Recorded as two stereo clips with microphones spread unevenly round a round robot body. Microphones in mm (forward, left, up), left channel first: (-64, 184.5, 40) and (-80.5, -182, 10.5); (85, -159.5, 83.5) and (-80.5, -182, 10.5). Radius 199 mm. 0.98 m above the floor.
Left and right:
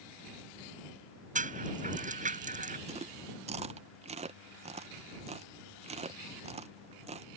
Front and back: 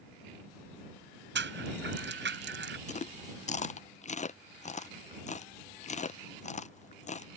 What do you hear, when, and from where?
1.4 s a rattle: 165° right
2.9 s chewing: 55° right